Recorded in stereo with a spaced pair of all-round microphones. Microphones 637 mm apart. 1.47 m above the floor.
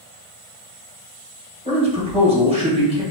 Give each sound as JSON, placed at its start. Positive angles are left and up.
{"t": 1.6, "sound": "a man speaking", "side_deg": -10, "distance_m": 1.6}